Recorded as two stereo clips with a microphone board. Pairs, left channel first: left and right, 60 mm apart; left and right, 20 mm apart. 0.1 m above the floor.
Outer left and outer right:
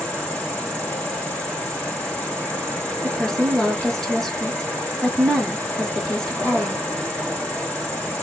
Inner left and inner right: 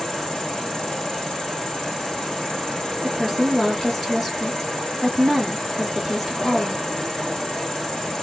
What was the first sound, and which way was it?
An insect, 25° left (ahead or behind).